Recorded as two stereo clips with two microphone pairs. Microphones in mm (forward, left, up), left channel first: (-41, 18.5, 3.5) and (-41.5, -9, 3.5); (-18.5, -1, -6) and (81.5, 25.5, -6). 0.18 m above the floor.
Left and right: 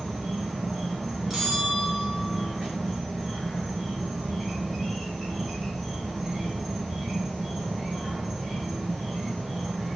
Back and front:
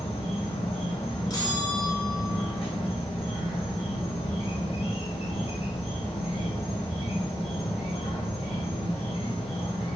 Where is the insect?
175° right, 1.7 m.